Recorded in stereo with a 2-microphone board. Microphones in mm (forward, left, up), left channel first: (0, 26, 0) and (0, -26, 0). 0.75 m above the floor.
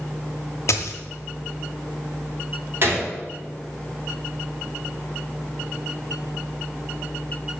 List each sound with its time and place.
0.7 s a dropped coin: 65° left (ahead or behind), 0.9 m
2.8 s a gunshot: 45° right (ahead or behind), 2 m